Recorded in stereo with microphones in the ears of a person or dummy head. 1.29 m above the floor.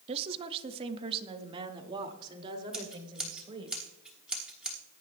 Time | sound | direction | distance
0.1 | a woman speaking | 30° right (ahead or behind) | 0.7 m
2.7 | scissors | 5° right (ahead or behind) | 1.5 m